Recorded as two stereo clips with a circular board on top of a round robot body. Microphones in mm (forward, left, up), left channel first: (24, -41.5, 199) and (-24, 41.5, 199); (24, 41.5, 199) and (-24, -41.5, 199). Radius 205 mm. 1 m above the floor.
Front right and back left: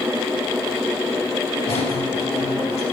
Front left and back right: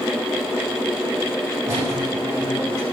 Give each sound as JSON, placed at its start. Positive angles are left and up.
{"t": 1.6, "sound": "a squeak", "azimuth_deg": -65, "distance_m": 7.0}